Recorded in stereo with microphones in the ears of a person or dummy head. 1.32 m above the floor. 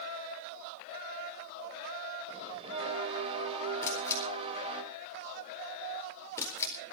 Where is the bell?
30° right (ahead or behind), 3 m.